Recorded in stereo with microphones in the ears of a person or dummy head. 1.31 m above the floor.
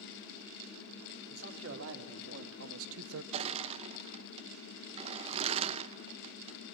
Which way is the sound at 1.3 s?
70° right (ahead or behind).